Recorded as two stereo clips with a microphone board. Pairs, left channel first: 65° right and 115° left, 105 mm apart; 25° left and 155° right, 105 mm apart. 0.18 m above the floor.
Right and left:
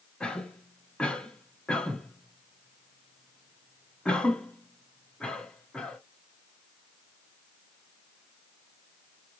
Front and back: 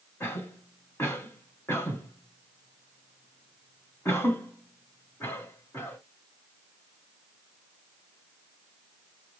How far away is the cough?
About 1.1 m.